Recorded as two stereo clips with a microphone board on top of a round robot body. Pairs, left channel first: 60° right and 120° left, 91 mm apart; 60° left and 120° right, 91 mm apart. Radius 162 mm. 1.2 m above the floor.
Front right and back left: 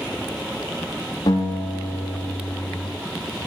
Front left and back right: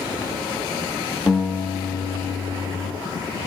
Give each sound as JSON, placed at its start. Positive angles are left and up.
{"t": 1.3, "sound": "a guitar", "azimuth_deg": -10, "distance_m": 0.7}